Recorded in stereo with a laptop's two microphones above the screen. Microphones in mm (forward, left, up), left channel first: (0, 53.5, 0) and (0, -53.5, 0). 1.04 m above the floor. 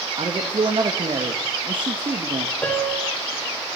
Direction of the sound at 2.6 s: 15° left (ahead or behind).